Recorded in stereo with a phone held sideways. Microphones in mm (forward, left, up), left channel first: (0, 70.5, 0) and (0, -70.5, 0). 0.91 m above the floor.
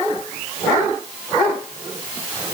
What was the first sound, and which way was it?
Only background noise.